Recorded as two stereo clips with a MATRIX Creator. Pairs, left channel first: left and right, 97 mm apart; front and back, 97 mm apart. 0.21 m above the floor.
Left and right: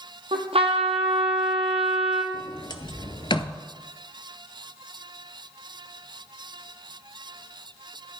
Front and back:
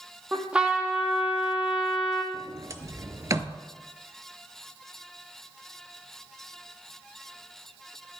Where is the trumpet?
100° right, 1.4 m.